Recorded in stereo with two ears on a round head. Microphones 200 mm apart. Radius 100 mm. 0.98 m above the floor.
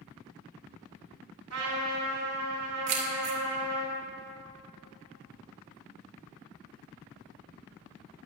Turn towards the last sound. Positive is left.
turn(degrees=-85)